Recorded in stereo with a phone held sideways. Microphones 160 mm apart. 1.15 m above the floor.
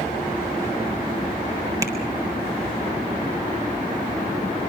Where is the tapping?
20° right (ahead or behind), 3.5 m.